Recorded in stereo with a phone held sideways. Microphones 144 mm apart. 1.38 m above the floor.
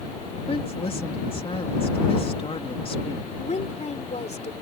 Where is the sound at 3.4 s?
55° left (ahead or behind).